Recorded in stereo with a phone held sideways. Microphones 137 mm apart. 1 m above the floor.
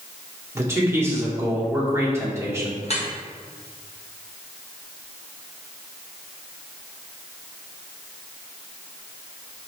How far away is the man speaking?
About 1.9 m.